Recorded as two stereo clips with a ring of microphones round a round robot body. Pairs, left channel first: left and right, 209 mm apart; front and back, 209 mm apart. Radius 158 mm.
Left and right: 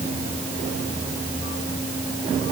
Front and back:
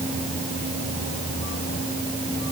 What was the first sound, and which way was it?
Only background noise.